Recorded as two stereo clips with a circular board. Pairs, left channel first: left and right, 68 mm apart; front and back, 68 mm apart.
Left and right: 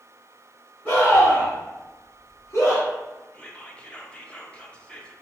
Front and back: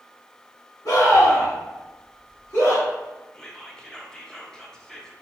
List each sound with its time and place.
0.8 s a scream: 25° left, 2 m; by 2.9 s 45° left, 3 m
3.3 s whispering: 55° left, 0.7 m